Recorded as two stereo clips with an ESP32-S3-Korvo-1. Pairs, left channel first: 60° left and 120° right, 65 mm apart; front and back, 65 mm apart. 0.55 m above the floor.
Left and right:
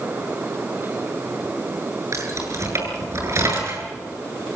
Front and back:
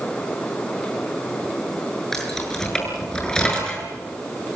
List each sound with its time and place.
2.1 s keys jangling: 85° right, 7 m; by 3.9 s 75° right, 6.5 m